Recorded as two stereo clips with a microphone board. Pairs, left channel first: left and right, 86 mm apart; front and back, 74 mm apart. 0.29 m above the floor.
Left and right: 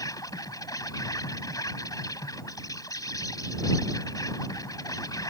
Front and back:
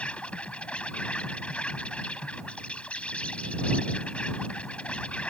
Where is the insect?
70° left.